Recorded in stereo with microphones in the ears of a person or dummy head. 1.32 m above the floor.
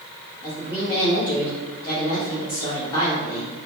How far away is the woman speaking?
About 0.8 m.